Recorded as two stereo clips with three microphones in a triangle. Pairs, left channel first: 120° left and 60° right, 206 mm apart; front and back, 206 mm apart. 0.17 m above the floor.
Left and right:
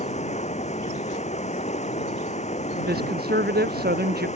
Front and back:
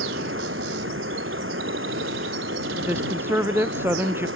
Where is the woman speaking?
100° right.